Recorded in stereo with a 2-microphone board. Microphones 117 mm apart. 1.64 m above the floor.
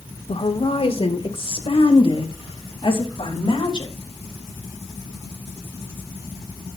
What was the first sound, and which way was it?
A woman speaking, 60° left (ahead or behind).